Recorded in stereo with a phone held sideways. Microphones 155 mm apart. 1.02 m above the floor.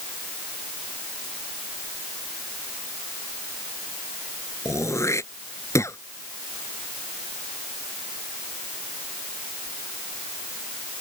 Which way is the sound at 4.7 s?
20° left (ahead or behind).